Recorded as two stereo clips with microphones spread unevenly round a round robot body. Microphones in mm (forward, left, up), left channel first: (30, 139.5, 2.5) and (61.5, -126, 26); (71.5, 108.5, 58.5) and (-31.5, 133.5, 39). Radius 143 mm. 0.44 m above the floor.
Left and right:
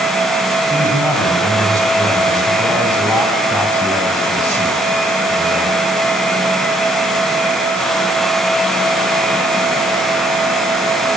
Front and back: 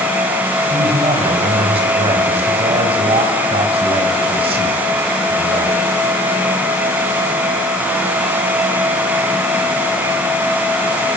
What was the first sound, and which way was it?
A man speaking, straight behind.